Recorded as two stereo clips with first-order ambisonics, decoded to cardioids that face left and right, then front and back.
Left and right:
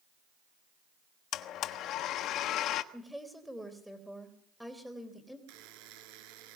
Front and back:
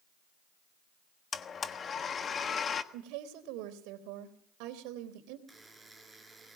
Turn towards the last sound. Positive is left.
turn(degrees=-95)